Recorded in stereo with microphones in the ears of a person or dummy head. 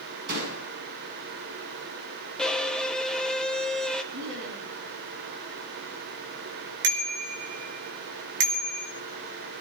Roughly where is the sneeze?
I don't hear a sneeze.